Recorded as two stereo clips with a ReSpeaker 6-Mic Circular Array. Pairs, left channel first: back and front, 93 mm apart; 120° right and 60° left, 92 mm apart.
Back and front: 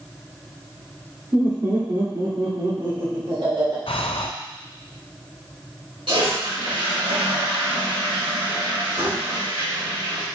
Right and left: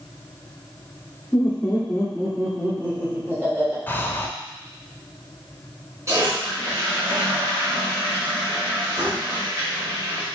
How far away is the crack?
I don't hear a crack.